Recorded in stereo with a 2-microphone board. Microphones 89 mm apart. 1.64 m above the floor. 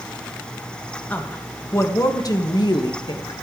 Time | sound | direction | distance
1.1 | a woman speaking | 20° left (ahead or behind) | 1.8 m